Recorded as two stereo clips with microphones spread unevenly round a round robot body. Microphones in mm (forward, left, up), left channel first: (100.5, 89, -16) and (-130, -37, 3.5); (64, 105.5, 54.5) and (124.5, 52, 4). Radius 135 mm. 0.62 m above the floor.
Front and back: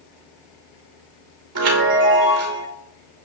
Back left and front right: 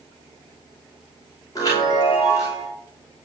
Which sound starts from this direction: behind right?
A chime, at 1.6 s.